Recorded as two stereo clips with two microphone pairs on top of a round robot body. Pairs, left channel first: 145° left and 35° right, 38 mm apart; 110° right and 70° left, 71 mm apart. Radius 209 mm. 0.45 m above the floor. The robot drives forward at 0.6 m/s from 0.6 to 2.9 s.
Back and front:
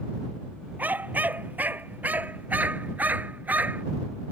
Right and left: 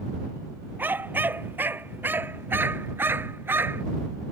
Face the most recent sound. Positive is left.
turn(degrees=5)